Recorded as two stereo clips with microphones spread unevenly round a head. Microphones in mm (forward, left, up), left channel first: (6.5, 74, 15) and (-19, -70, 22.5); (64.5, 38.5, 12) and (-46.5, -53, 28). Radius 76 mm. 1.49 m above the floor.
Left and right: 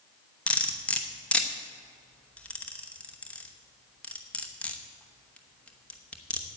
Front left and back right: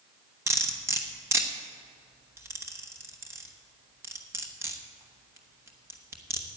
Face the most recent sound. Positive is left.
turn(degrees=160)